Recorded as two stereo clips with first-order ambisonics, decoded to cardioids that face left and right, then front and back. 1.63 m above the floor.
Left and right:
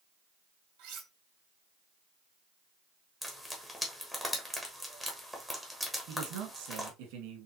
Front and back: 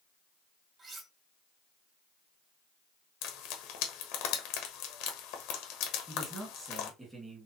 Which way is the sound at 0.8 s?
115° right.